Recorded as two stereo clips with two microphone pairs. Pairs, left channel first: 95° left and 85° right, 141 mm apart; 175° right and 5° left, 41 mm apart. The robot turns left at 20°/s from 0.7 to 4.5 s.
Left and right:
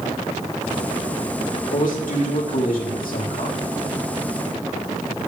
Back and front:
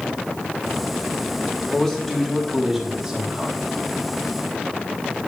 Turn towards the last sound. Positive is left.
turn(degrees=55)